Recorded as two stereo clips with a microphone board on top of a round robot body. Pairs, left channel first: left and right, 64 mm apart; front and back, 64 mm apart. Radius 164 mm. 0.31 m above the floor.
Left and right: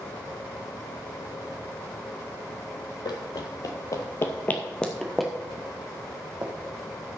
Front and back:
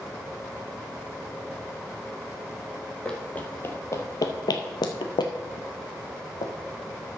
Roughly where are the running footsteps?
Left.